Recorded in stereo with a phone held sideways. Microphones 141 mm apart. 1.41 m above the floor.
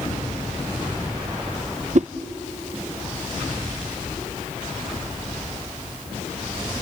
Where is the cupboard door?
I don't hear a cupboard door.